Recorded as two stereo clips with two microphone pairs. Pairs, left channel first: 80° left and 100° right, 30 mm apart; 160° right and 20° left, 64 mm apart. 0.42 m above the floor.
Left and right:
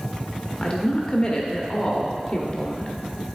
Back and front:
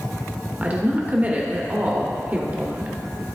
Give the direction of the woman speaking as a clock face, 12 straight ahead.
10 o'clock.